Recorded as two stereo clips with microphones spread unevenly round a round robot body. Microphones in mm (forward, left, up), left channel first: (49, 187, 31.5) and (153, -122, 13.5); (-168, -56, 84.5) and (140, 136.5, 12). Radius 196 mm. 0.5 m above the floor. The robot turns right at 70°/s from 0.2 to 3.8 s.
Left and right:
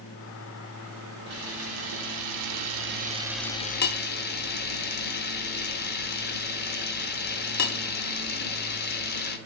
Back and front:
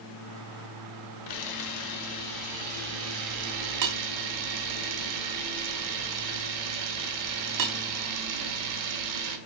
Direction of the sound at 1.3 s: 130° right.